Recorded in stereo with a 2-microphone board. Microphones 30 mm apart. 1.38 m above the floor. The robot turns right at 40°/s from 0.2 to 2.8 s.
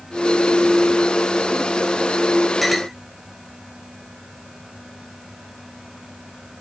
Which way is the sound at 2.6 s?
Centre (ahead or behind).